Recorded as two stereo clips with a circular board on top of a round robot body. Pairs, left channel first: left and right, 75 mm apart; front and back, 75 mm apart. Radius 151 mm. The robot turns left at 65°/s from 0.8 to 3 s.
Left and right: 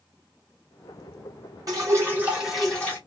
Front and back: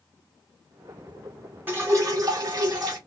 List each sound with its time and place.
1.7 s dripping: 120° right, 2 m; by 3.0 s 155° left, 2 m